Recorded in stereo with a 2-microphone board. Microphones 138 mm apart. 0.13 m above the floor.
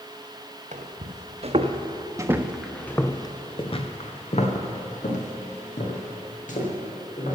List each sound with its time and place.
0.7 s footsteps: 65° right (ahead or behind), 1.6 m; by 7.4 s 70° left (ahead or behind), 3.5 m